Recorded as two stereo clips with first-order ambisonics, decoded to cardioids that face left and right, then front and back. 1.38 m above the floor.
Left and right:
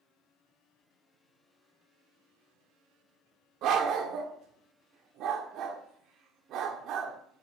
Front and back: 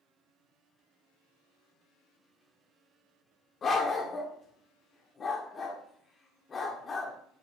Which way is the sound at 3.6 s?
60° right.